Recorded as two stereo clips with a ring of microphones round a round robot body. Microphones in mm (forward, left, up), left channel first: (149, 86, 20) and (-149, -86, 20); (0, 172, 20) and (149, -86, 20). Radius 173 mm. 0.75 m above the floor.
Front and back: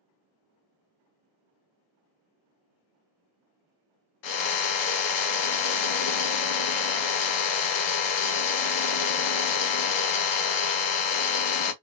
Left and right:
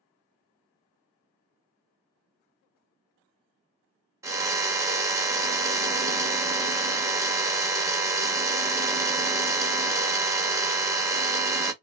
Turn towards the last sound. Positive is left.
turn(degrees=20)